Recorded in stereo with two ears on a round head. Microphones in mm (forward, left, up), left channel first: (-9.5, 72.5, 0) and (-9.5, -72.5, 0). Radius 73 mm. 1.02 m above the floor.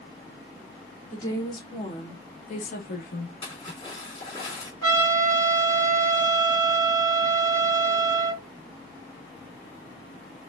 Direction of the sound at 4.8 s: 25° left (ahead or behind).